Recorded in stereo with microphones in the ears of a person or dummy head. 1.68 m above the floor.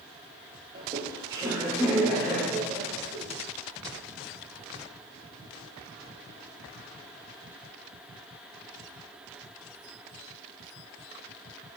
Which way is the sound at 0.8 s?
35° right (ahead or behind).